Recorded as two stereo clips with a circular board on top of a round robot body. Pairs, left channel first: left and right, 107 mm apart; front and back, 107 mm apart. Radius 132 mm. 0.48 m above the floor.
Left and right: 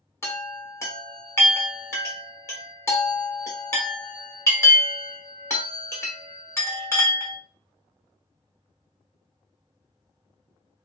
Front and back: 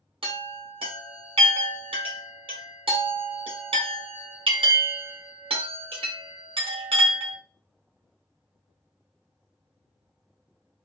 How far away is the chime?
About 1.4 m.